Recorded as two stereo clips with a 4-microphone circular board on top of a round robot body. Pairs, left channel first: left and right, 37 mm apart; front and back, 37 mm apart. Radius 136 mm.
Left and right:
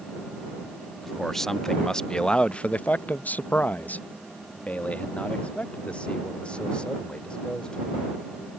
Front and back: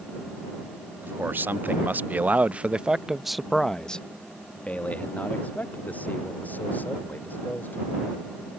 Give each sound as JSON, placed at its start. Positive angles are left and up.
{"t": 1.0, "sound": "a man speaking", "azimuth_deg": 175}